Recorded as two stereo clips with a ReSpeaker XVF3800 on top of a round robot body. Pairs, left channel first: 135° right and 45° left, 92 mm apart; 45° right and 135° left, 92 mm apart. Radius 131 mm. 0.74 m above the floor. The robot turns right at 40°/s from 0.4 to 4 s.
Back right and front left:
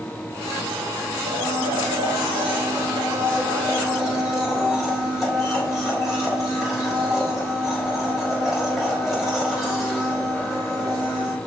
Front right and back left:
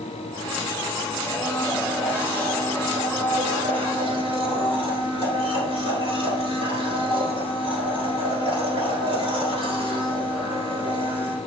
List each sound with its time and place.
1.3 s a blender: 25° left, 4.5 m; by 11.4 s 135° left, 4.5 m